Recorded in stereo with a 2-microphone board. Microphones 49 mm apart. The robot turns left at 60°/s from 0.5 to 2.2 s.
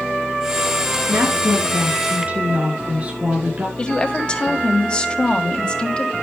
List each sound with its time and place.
1.1 s a woman speaking: 80° right, 5.5 m; by 3.7 s 145° right, 5.5 m
3.8 s a woman speaking: 20° left (ahead or behind), 2 m